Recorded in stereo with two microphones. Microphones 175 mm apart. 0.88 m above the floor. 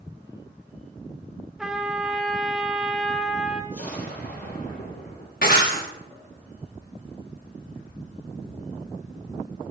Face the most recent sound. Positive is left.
turn(degrees=70)  # may be behind; listen again after turning